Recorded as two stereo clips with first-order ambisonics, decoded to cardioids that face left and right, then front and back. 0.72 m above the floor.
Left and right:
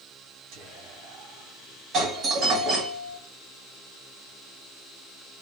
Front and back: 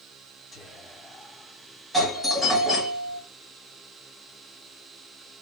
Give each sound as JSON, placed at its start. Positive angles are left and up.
{"t": 0.5, "sound": "whispering", "azimuth_deg": -80, "distance_m": 1.3}
{"t": 1.9, "sound": "a doorbell", "azimuth_deg": -95, "distance_m": 1.1}